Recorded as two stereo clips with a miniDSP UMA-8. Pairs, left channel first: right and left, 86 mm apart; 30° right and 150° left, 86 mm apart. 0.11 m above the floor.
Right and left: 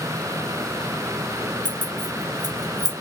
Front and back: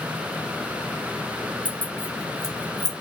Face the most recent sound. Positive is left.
turn(degrees=120)